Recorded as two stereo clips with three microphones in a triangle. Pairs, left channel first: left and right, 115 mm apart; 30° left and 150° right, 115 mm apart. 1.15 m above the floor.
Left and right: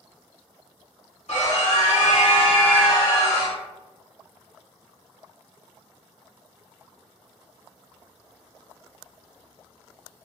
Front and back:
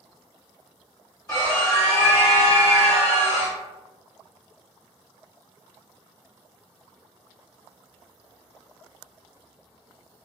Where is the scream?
85° left, 1.9 m; by 3.6 s 20° left, 1.3 m.